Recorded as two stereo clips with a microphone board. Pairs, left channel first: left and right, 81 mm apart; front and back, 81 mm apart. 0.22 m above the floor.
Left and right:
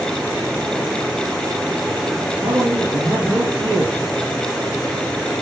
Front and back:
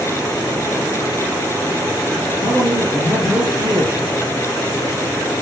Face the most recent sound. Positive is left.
turn(degrees=-120)